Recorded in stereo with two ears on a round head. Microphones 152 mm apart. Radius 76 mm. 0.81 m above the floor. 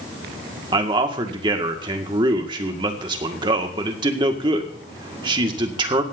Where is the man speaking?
25° right (ahead or behind), 1.8 m.